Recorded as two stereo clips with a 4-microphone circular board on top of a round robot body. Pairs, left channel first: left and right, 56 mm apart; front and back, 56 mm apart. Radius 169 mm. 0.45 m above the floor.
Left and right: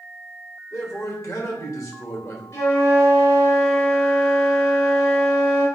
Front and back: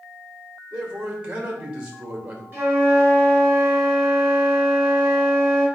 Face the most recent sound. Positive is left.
turn(degrees=120)